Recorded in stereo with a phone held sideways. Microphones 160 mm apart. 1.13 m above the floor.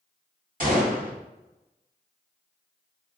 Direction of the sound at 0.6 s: 60° right (ahead or behind).